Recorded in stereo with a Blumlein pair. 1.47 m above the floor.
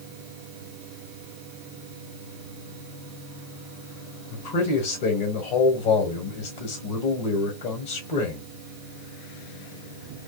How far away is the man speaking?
About 1.2 m.